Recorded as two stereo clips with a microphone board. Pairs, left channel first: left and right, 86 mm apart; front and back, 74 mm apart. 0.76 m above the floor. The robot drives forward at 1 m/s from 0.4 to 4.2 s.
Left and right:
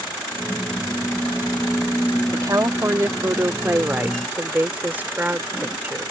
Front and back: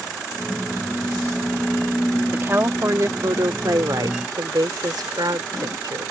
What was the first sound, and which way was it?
A woman speaking, 125° right.